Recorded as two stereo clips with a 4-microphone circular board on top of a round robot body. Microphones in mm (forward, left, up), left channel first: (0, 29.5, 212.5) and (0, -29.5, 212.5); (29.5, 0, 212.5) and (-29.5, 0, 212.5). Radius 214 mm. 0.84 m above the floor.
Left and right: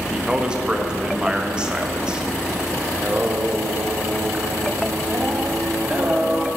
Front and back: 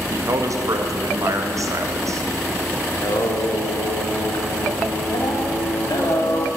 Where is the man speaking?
165° right, 1.7 m.